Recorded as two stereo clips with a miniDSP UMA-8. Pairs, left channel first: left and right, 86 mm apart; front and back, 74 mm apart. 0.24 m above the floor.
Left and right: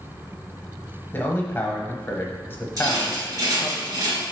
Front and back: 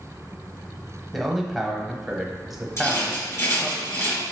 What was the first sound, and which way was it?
A man speaking, 95° left.